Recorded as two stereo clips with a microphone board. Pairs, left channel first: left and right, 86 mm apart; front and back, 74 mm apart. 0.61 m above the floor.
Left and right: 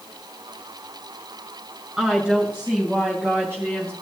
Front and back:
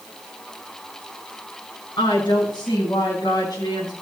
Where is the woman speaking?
5° right, 5 m; by 3.9 s 30° right, 4 m.